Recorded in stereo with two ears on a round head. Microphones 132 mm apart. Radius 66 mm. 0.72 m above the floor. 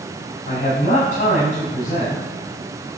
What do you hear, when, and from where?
0.5 s a man speaking: 55° left (ahead or behind), 6 m